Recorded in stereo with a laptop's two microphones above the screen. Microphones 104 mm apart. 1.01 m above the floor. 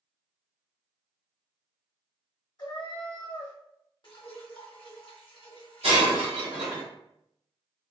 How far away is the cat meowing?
About 0.9 m.